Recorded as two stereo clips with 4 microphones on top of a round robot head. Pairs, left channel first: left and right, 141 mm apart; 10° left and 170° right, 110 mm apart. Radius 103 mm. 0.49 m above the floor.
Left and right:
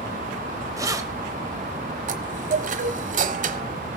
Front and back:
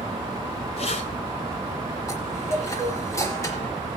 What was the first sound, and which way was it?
Keys jangling, 25° right.